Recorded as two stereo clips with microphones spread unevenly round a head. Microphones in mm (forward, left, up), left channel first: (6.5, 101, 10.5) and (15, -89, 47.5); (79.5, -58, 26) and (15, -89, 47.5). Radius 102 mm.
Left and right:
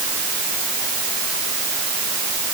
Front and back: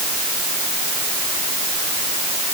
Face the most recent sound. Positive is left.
No sound to turn to.